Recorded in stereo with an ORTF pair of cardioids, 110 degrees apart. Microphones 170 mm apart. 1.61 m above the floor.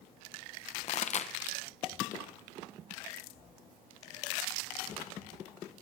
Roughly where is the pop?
Ahead left.